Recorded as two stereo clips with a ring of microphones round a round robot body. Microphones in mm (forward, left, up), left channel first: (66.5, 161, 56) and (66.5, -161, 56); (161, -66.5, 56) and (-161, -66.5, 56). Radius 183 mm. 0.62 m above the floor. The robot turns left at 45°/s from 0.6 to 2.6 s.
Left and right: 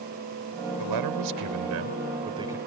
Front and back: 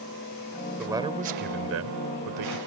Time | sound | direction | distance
0.8 | a man speaking | 95° right | ?